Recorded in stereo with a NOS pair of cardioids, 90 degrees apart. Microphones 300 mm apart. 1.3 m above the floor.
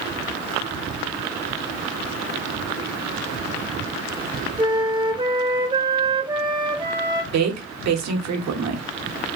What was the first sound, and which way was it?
A flute, 15° right.